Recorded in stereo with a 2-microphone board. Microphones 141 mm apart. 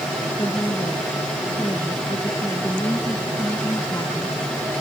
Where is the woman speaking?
25° left (ahead or behind); by 4.4 s 30° left (ahead or behind).